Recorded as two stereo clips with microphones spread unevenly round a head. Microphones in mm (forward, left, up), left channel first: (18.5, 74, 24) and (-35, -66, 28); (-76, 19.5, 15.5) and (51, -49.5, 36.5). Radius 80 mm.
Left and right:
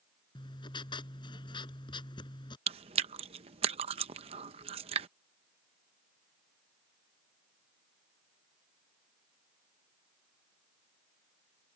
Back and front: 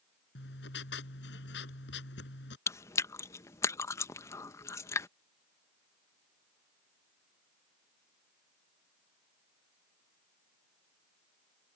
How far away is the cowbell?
I don't hear a cowbell.